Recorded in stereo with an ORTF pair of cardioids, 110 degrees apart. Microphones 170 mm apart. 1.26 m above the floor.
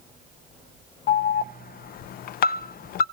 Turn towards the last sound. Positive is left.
turn(degrees=60)